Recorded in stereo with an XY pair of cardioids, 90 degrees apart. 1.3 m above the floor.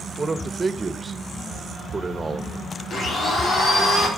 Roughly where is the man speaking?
Ahead right.